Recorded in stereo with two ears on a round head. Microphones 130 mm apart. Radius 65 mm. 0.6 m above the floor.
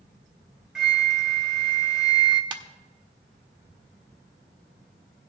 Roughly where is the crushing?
No crushing in this recording.